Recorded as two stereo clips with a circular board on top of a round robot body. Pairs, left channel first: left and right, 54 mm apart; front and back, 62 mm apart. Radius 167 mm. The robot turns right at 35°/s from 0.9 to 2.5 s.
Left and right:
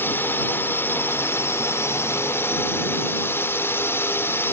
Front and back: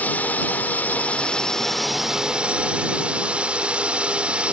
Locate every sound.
0.0 s a drone: 55° left; by 4.5 s 115° left